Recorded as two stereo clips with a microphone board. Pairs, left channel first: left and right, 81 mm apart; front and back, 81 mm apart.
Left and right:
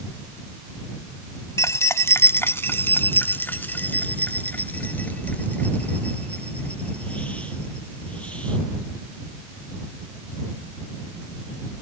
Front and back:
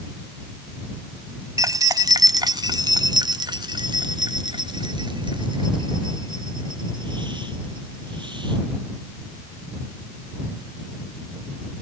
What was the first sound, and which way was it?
Keys jangling, 140° left.